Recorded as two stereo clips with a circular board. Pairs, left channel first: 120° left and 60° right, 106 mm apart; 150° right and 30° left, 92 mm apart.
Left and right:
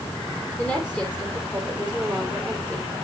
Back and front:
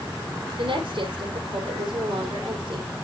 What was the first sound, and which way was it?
A woman speaking, 45° left.